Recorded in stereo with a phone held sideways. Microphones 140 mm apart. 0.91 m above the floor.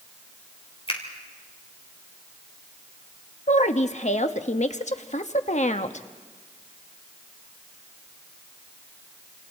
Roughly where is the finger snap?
Left.